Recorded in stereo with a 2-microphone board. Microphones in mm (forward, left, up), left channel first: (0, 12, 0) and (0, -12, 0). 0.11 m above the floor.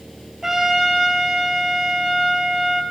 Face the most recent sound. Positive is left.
turn(degrees=-20)  # may be behind; listen again after turning